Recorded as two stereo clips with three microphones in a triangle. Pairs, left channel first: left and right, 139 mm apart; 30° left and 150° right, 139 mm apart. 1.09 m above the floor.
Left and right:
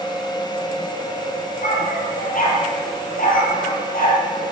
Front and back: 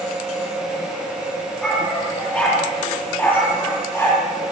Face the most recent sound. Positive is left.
turn(degrees=105)